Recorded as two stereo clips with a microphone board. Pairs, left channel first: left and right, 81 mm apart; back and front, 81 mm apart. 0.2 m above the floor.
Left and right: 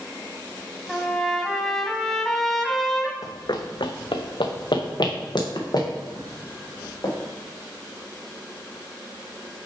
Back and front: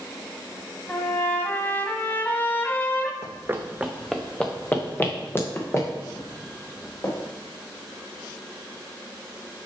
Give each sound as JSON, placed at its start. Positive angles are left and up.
{"t": 0.9, "sound": "a trumpet", "azimuth_deg": 165, "distance_m": 0.8}
{"t": 3.2, "sound": "running footsteps", "azimuth_deg": 45, "distance_m": 0.8}